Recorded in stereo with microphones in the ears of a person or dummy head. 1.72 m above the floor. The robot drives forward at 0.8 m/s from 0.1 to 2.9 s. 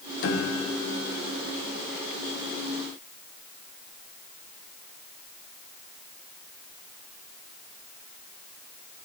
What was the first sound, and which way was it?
A piano, 70° left (ahead or behind).